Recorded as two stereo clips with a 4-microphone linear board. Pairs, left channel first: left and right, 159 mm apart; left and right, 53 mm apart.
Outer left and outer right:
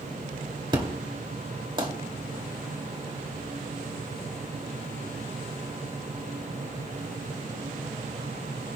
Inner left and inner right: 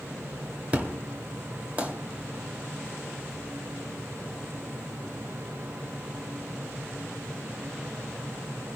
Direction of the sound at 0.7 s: 30° right (ahead or behind).